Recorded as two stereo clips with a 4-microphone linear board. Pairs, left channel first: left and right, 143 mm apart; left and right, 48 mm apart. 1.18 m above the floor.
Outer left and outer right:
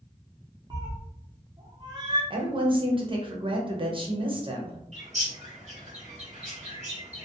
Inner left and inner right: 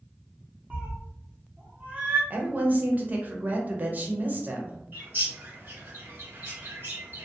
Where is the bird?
50° right (ahead or behind), 1.6 m.